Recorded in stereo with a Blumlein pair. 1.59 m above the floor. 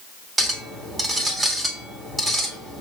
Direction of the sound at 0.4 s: 10° right.